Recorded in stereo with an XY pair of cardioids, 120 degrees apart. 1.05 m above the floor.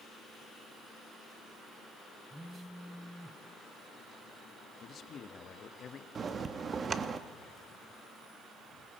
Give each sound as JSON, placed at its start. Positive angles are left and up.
{"t": 2.3, "sound": "a phone buzzing", "azimuth_deg": 0, "distance_m": 1.0}
{"t": 4.8, "sound": "a man speaking", "azimuth_deg": 45, "distance_m": 1.5}
{"t": 6.2, "sound": "a bell", "azimuth_deg": -35, "distance_m": 1.2}